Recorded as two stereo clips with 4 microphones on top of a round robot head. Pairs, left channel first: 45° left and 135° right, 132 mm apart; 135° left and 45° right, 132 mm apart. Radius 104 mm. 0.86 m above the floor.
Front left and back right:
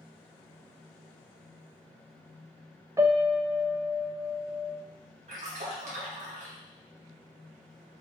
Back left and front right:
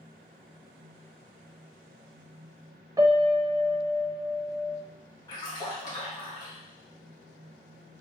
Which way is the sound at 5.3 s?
165° right.